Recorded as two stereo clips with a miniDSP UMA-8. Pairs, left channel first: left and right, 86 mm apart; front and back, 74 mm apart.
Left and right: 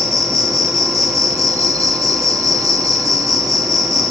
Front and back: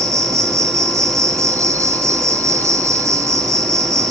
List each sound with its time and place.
0.0 s an insect: 135° right, 1.2 m